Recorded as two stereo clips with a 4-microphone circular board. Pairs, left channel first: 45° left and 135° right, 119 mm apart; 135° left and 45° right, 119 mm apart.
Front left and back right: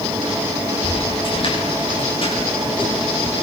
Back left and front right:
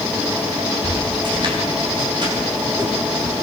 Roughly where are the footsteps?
Ahead.